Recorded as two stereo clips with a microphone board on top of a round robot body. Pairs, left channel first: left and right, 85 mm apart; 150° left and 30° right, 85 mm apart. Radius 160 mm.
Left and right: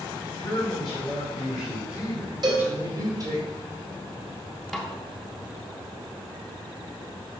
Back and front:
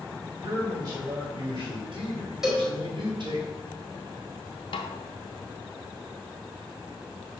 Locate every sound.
0.4 s a man speaking: 20° left, 3.5 m; by 3.4 s 55° right, 2.5 m
2.4 s a cowbell: 115° right, 2.5 m
4.7 s a snare drum: straight behind, 0.6 m